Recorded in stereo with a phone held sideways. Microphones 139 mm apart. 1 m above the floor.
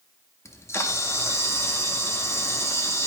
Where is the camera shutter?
20° left (ahead or behind), 0.6 m.